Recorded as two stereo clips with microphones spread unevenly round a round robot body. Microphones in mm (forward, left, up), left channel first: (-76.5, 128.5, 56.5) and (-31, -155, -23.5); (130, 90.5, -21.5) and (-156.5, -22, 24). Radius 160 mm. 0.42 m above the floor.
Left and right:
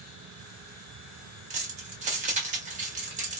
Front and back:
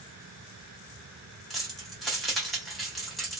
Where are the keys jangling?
60° right, 0.9 m.